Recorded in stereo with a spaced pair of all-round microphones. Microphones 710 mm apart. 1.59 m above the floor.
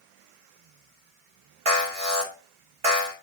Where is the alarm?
50° right (ahead or behind), 3.5 m.